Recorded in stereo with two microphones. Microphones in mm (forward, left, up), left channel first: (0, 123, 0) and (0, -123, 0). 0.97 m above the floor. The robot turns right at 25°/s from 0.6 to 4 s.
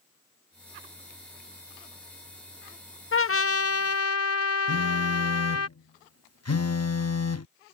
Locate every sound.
3.1 s a trumpet: 60° left (ahead or behind); by 5.7 s 80° left
4.7 s a phone buzzing: 85° left